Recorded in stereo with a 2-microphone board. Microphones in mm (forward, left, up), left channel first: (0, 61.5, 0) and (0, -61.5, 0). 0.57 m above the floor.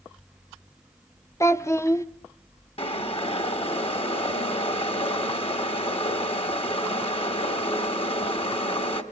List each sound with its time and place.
1.4 s a child speaking: 25° left (ahead or behind), 0.7 m
2.8 s boiling: 50° left (ahead or behind), 1.7 m